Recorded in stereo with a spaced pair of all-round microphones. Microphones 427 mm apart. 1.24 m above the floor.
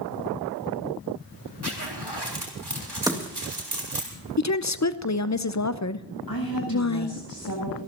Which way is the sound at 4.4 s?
40° left (ahead or behind).